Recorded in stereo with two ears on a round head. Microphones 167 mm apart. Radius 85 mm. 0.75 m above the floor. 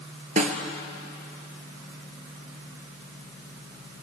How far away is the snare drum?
About 2 m.